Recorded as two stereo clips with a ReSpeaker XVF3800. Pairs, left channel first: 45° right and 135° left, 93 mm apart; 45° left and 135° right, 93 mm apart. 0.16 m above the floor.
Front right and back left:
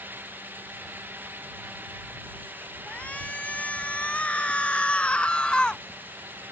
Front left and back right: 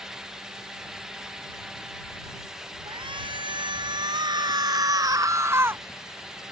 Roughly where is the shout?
Behind right.